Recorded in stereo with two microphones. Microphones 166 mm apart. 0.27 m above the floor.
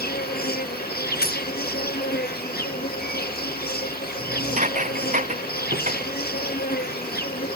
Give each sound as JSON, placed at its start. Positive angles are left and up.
{"t": 0.0, "sound": "an insect", "side_deg": 75}
{"t": 1.2, "sound": "a dropped coin", "side_deg": 75}
{"t": 4.2, "sound": "dishes clattering", "side_deg": -50}